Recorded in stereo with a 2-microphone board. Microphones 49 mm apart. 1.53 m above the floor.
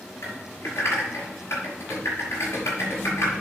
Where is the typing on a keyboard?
75° left (ahead or behind), 5.5 m.